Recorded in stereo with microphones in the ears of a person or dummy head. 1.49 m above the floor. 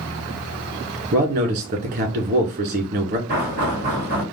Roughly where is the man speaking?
Right.